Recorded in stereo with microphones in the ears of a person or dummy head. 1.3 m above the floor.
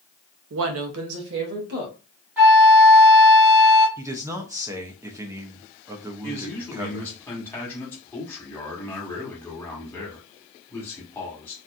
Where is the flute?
10° right (ahead or behind), 0.9 m.